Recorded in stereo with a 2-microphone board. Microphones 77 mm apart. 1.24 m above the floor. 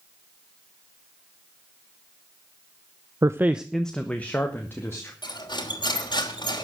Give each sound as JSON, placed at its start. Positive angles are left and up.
{"t": 3.2, "sound": "a man speaking", "side_deg": -45, "distance_m": 0.7}
{"t": 5.2, "sound": "cutlery clinking", "side_deg": 75, "distance_m": 3.0}